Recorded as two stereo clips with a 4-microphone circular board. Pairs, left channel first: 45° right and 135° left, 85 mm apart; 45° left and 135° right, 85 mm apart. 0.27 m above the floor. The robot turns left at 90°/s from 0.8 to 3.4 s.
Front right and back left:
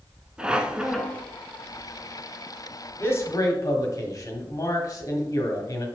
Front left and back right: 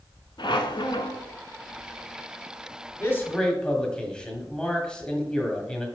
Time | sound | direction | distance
0.4 | a squeak | 55° left | 0.7 m
3.0 | a man speaking | 5° left | 1.4 m